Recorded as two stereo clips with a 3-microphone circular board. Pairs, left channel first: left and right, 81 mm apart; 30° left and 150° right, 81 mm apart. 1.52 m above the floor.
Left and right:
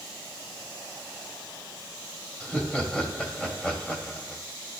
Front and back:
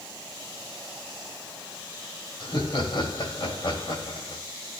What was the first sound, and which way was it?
Laughter, 10° left.